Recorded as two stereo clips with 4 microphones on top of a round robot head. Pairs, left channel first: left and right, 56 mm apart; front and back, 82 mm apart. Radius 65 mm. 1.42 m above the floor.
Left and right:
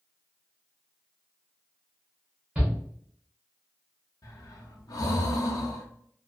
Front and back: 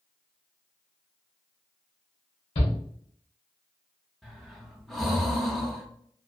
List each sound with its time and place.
2.5 s a shout: 15° right, 0.9 m
4.2 s breathing: 85° left, 0.6 m